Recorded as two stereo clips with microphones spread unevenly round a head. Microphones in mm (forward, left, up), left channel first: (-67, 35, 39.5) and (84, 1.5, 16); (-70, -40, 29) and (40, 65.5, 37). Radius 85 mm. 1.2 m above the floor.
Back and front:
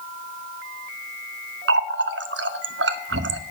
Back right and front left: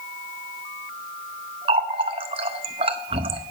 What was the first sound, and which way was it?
A running tap, 10° right.